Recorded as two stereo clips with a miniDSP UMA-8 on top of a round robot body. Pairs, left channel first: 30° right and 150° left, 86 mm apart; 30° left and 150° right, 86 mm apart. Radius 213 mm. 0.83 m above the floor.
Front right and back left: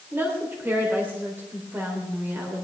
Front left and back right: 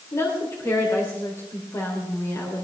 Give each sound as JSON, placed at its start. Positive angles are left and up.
{"t": 0.1, "sound": "a woman speaking", "azimuth_deg": 85, "distance_m": 3.5}